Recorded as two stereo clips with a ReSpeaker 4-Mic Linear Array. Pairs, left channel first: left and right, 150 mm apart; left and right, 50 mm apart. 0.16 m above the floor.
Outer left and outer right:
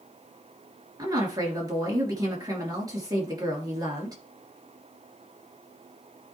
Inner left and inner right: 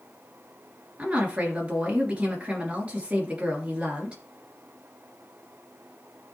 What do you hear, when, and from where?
1.0 s a woman speaking: 25° right (ahead or behind), 3 m